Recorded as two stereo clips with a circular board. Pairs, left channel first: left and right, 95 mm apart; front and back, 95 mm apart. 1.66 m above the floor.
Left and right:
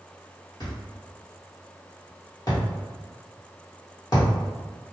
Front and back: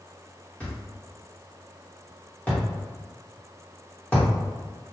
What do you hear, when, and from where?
0.6 s a thud: 70° left, 1.4 m